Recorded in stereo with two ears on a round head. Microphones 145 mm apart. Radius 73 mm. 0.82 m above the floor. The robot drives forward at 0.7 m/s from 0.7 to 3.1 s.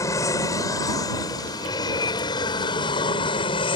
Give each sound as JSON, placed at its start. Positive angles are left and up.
{"t": 0.0, "sound": "an aircraft", "side_deg": 20}